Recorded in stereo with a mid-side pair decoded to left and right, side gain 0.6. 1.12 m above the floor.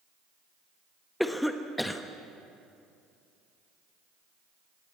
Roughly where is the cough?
Ahead.